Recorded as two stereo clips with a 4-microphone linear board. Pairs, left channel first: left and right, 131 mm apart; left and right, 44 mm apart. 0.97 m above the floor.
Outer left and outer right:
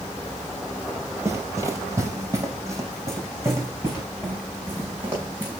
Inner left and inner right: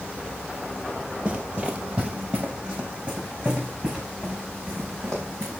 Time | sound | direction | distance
1.2 | running footsteps | 25° right (ahead or behind) | 1.1 m